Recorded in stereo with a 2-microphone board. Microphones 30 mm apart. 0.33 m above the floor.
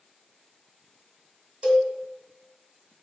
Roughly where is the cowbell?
Right.